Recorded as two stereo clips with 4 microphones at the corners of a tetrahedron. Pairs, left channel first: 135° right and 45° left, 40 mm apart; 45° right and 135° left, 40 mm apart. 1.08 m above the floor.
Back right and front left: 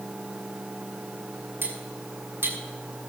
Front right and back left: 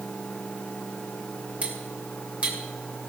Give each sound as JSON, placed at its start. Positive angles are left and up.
{"t": 1.6, "sound": "cutlery clinking", "azimuth_deg": 80, "distance_m": 2.5}